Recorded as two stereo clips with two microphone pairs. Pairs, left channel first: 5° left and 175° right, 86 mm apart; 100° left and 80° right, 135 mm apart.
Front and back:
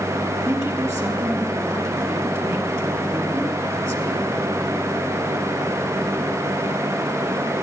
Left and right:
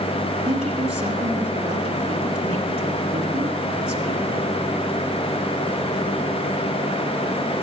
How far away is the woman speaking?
About 3.5 m.